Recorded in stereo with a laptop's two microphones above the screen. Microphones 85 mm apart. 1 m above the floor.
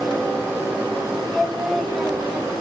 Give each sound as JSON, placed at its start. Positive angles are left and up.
{"t": 1.3, "sound": "singing", "side_deg": 0, "distance_m": 0.7}